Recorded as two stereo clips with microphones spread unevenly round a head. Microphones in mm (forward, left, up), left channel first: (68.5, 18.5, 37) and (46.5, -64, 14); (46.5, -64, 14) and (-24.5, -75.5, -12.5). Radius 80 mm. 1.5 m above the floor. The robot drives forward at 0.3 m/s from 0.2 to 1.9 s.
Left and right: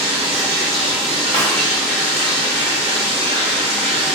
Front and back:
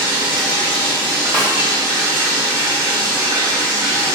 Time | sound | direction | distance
0.0 | running water | 150° right | 1.0 m
1.3 | a snare drum | 175° right | 1.4 m